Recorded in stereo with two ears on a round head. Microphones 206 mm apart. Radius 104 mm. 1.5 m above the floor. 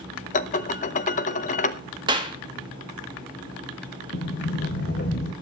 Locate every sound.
0.3 s dishes clattering: 35° left (ahead or behind), 0.7 m
2.1 s a clap: 20° right (ahead or behind), 1.9 m
4.1 s a sliding door: 45° left (ahead or behind), 1.7 m